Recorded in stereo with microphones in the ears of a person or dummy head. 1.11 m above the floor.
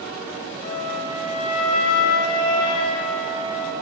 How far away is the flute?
About 4.5 m.